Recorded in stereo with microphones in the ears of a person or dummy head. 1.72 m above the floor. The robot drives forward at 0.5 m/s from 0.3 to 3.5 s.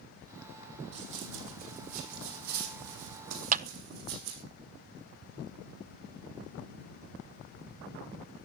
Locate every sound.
0.9 s running footsteps: 40° right (ahead or behind), 4.5 m; by 4.4 s 65° right (ahead or behind), 5 m
3.5 s a clap: 45° right (ahead or behind), 0.6 m